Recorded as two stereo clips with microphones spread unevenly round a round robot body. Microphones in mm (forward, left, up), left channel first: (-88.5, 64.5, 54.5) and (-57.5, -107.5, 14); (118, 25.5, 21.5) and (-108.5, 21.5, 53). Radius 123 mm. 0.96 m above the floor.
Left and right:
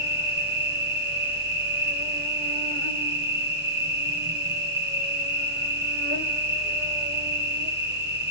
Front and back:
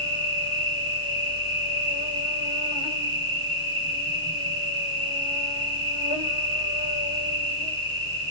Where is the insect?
65° right, 6 m.